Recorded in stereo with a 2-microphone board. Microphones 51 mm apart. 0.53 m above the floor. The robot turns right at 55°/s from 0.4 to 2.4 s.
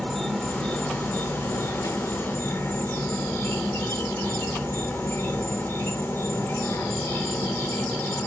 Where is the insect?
15° left, 1.2 m; by 8.3 s 125° left, 1.2 m.